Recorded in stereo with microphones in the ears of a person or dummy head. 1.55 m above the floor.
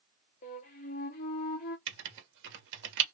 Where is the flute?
20° left (ahead or behind), 0.6 m.